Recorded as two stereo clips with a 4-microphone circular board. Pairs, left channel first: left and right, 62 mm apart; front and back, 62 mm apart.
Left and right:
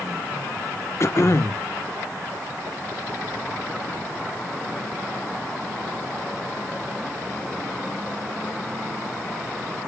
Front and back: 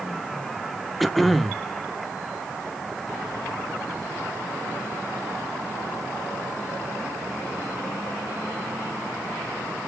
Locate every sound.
1.0 s throat clearing: 90° left, 0.7 m